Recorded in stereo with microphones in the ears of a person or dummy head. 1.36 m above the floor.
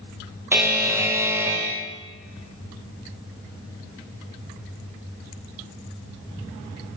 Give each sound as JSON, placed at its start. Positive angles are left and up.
{"t": 0.5, "sound": "a buzzer", "side_deg": -10, "distance_m": 0.6}